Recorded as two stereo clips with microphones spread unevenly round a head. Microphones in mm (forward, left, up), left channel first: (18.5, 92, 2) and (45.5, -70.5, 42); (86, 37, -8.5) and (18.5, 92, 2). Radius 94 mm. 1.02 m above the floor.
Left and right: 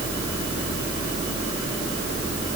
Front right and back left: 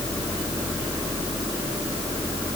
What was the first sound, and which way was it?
Only background noise.